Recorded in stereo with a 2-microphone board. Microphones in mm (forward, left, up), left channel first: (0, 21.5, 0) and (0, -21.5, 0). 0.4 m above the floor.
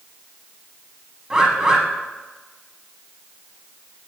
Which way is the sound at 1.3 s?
20° right (ahead or behind).